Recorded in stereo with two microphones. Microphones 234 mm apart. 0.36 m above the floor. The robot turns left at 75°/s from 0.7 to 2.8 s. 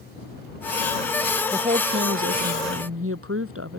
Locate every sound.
1.5 s a woman speaking: 15° right; by 3.8 s 110° right